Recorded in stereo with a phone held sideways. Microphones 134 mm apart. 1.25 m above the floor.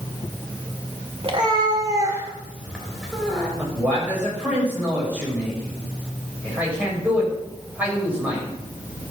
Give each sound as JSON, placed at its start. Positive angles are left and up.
{"t": 1.2, "sound": "a cat meowing", "side_deg": -45, "distance_m": 2.0}
{"t": 3.6, "sound": "a man speaking", "side_deg": -10, "distance_m": 6.5}